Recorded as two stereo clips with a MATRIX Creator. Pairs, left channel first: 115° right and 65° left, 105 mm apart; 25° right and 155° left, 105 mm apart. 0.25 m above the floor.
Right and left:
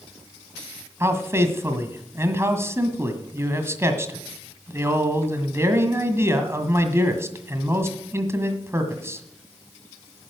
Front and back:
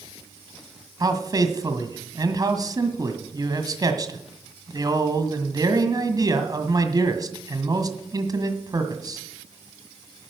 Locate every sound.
1.0 s a man speaking: 125° left, 1.7 m